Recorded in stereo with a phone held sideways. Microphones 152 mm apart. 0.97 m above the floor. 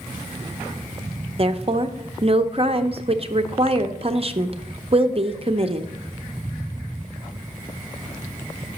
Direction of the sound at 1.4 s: 40° right (ahead or behind).